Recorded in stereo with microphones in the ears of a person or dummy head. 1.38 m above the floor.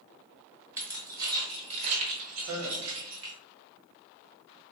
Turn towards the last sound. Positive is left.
turn(degrees=-85)